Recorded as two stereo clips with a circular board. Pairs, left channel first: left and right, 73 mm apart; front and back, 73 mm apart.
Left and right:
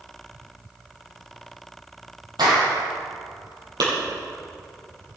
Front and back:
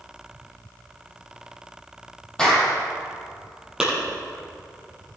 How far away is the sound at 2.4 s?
About 5 m.